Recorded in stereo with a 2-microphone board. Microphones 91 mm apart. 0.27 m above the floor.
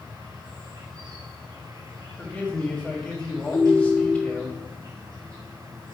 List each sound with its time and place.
0.0 s an insect: 45° right (ahead or behind), 2 m
2.2 s a man speaking: 10° left (ahead or behind), 1.5 m
3.5 s a ringtone: 35° left (ahead or behind), 0.9 m